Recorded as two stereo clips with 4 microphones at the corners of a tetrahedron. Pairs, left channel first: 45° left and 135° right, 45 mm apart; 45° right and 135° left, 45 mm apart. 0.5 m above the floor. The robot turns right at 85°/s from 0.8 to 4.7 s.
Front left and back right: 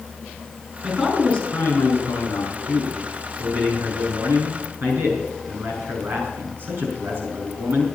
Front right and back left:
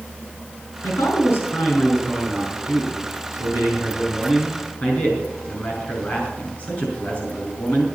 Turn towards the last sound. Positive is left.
turn(degrees=-90)